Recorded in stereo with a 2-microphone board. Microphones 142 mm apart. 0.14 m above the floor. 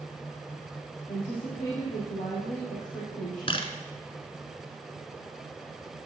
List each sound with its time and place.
1.1 s a woman speaking: 60° left (ahead or behind), 4 m
3.5 s a camera shutter: 40° left (ahead or behind), 1.0 m